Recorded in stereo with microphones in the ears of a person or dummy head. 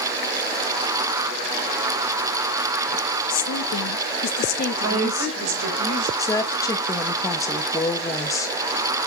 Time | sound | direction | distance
3.3 | a woman speaking | 75° left (ahead or behind) | 1.3 m
4.8 | a woman speaking | 80° right | 4 m
6.2 | a woman speaking | 20° left (ahead or behind) | 0.8 m